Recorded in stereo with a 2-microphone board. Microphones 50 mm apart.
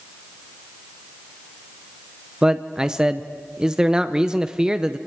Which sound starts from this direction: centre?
A man speaking, at 2.4 s.